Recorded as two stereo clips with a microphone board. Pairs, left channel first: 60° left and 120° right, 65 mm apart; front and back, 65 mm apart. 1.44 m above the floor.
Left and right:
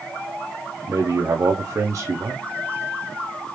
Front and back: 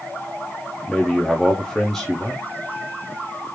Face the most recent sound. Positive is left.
turn(degrees=-85)